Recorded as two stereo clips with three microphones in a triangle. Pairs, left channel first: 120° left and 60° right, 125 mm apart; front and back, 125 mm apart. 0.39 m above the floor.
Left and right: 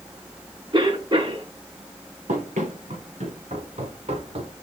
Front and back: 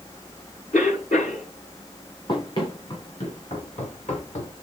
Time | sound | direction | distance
0.7 | a cough | 10° right | 4.5 m
2.3 | running footsteps | 50° right | 4.5 m